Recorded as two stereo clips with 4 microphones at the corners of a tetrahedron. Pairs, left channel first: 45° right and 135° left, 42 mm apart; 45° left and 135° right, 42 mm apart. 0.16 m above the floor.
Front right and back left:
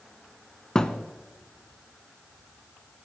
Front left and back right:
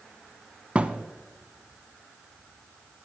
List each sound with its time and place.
0.8 s a thud: 100° right, 0.7 m